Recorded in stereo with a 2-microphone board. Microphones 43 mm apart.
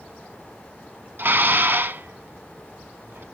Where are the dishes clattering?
50° right (ahead or behind), 1.0 m.